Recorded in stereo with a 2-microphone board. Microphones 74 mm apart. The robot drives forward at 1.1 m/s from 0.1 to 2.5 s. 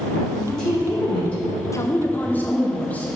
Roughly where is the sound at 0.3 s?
Centre.